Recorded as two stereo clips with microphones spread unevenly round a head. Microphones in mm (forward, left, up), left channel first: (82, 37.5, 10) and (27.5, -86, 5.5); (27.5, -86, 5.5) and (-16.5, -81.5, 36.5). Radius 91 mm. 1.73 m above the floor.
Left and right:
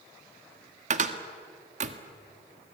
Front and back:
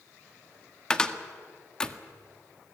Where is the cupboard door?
105° right, 1.7 m.